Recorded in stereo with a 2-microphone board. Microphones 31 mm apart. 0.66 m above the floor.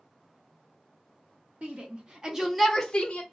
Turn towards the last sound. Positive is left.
turn(degrees=40)  # may be behind; listen again after turning